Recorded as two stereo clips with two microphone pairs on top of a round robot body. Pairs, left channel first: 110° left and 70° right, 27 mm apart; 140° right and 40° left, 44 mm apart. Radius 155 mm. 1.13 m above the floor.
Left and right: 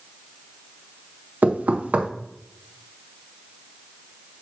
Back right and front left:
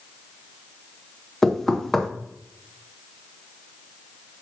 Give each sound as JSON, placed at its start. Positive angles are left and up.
{"t": 1.4, "sound": "knocking", "azimuth_deg": -55, "distance_m": 0.6}